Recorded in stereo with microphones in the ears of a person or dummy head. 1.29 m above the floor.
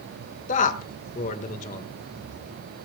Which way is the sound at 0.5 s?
40° left (ahead or behind).